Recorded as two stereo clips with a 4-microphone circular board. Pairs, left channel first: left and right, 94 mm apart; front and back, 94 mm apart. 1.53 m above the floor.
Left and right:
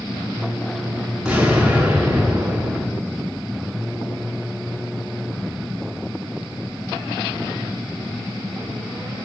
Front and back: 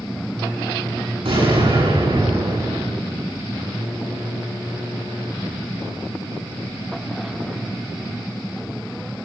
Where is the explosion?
170° right, 9 m.